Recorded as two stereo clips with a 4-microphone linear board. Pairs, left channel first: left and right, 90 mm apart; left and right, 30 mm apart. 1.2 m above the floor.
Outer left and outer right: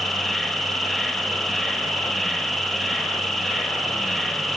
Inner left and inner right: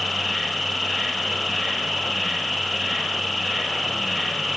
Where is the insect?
5° left (ahead or behind), 1.2 m.